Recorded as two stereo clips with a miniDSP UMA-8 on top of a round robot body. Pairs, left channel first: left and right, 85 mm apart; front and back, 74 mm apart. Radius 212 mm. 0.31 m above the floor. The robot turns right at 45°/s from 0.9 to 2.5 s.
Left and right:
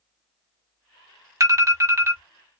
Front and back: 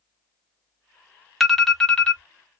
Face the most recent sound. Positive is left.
turn(degrees=-45)